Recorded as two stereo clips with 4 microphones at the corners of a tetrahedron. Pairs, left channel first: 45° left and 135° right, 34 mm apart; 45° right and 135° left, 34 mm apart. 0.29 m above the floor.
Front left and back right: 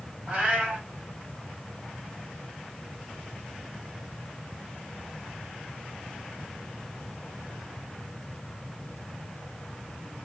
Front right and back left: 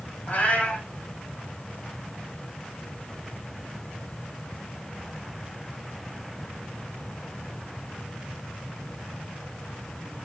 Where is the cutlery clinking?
No cutlery clinking in this recording.